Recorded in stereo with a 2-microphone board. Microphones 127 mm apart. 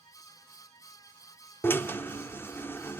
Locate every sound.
1.6 s a drill: 15° left (ahead or behind), 1.0 m